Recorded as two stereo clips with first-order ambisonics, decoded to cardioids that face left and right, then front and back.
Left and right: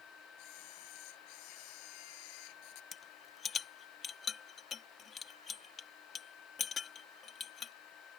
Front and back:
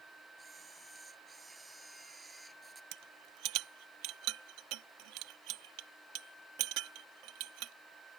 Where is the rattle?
155° left.